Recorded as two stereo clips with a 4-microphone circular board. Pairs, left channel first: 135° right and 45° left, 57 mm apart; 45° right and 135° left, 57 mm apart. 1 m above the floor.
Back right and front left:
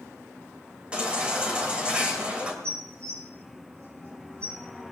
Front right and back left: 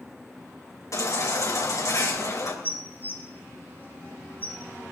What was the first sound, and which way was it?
A baby crying, 25° right.